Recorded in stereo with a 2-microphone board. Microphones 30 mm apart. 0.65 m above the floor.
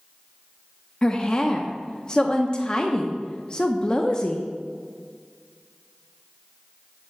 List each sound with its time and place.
1.0 s a woman speaking: 25° left (ahead or behind), 0.7 m